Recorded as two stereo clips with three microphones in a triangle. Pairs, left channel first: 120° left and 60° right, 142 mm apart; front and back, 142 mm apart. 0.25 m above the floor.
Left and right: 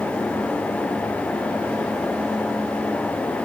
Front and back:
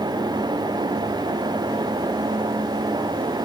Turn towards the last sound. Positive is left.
No sound to turn to.